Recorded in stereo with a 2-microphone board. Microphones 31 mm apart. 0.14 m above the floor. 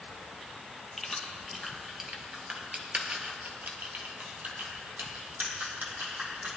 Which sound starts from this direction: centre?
Keys jangling, at 1.0 s.